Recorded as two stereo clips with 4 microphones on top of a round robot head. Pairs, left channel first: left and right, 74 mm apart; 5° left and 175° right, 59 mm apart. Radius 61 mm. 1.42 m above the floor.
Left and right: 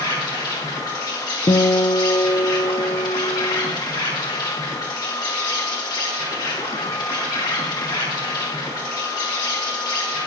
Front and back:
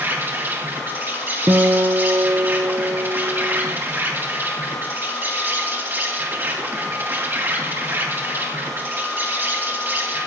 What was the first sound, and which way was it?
An insect, 130° left.